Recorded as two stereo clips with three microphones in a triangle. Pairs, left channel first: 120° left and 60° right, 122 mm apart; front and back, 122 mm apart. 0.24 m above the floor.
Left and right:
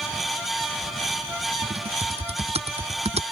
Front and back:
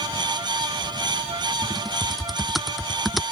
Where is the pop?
No pop in this recording.